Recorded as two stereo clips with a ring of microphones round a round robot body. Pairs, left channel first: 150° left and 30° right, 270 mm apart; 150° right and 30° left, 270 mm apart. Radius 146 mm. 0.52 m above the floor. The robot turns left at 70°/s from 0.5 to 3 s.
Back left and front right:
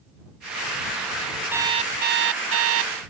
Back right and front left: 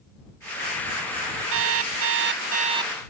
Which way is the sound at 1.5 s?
50° left.